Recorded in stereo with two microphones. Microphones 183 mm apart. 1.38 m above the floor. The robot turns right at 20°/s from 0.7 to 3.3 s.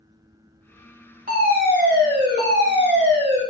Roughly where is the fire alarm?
Behind right.